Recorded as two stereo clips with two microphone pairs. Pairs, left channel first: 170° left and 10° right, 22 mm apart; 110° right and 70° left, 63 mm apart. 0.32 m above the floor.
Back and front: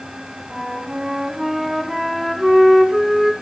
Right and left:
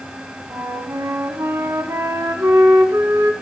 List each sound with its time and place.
0.5 s a flute: 65° left, 0.9 m